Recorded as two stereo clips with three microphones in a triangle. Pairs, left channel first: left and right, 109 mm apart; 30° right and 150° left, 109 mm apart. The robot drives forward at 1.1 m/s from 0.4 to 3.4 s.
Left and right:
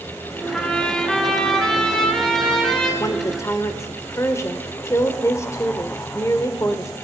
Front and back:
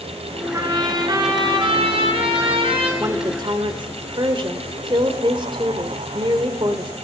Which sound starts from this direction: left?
A woman speaking, at 3.0 s.